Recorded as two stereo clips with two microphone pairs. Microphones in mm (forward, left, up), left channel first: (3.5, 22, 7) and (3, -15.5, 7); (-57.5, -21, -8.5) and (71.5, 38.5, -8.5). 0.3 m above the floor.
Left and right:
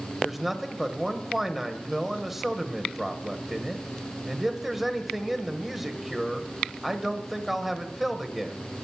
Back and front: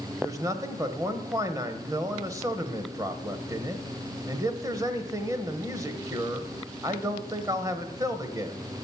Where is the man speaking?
10° right, 1.0 m.